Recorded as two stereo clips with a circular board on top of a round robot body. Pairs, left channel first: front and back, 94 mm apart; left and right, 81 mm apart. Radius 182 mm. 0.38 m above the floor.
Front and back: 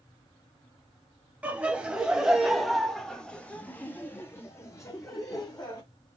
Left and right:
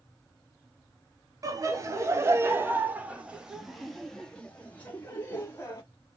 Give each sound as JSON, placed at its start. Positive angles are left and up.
{"t": 1.4, "sound": "laughter", "azimuth_deg": -110, "distance_m": 1.7}